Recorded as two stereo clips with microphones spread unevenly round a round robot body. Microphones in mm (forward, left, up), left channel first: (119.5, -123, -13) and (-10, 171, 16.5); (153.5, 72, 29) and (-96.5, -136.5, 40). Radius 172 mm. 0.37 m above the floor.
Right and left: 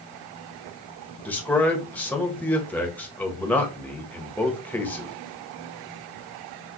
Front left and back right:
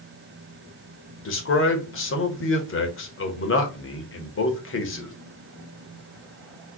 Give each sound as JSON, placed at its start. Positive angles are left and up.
{"t": 1.2, "sound": "a man speaking", "azimuth_deg": 10, "distance_m": 1.3}